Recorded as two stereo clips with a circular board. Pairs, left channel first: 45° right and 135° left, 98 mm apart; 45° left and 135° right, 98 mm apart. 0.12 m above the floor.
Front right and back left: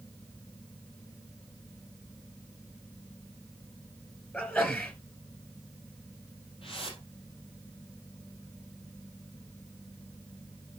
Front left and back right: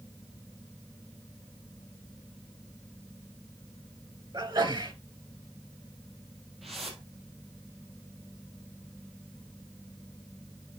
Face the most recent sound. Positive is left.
turn(degrees=-45)